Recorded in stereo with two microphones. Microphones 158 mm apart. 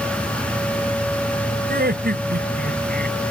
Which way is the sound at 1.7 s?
85° right.